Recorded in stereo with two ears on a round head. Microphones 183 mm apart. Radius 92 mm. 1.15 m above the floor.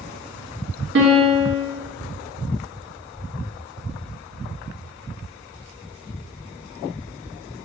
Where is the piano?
60° right (ahead or behind), 1.3 m.